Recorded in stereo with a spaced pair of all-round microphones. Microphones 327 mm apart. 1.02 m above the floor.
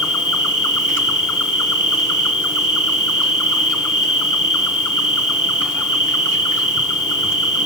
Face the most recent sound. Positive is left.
turn(degrees=65)  # may be behind; listen again after turning